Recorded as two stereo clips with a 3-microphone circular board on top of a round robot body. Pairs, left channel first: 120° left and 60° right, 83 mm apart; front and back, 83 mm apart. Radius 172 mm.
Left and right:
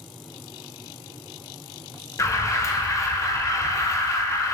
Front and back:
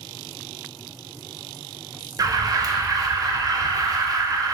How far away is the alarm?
About 0.5 m.